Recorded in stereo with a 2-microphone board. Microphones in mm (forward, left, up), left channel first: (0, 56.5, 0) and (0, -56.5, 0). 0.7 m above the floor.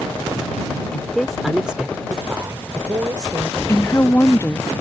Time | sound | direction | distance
0.9 | a woman speaking | 10° left (ahead or behind) | ?
3.7 | a woman speaking | 20° left (ahead or behind) | ?